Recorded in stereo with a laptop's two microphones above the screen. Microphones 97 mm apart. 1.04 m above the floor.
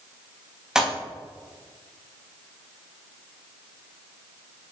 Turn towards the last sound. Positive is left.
turn(degrees=-5)  # may be behind; listen again after turning